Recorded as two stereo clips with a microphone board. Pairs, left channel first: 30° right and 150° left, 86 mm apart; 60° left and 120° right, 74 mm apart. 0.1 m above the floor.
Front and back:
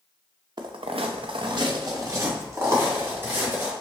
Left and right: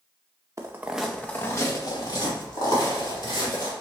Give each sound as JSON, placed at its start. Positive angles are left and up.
{"t": 0.6, "sound": "footsteps", "azimuth_deg": -170, "distance_m": 0.6}